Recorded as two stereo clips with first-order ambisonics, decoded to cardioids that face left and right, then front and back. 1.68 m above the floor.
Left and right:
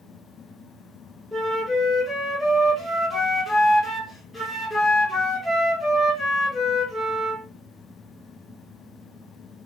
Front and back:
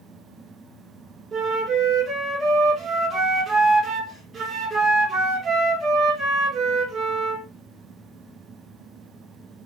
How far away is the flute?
About 0.9 m.